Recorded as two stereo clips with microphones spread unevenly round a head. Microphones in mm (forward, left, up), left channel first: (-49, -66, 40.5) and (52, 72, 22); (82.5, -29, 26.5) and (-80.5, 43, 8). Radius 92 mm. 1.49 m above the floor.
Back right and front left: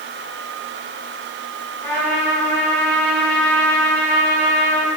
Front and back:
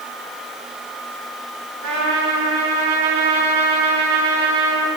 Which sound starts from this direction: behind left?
A trumpet, at 1.8 s.